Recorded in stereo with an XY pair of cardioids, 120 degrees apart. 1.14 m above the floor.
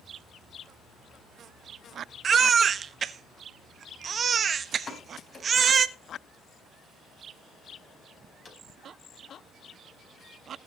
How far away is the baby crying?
About 1.1 m.